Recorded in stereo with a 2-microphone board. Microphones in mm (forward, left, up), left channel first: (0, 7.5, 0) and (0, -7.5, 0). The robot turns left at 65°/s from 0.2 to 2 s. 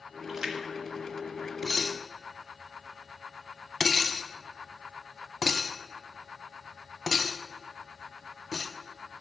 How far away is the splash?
About 1.3 m.